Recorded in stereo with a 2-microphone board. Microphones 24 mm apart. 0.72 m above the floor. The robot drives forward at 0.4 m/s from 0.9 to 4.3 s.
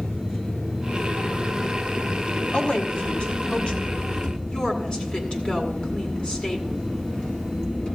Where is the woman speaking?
60° left (ahead or behind), 1.8 m; by 6.8 s 45° left (ahead or behind), 2 m.